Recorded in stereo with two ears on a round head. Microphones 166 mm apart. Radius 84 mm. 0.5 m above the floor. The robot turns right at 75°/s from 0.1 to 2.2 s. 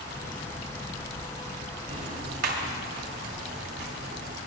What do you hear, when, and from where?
1.9 s ticking: 35° right (ahead or behind), 2.0 m; by 4.4 s 55° right (ahead or behind), 2.0 m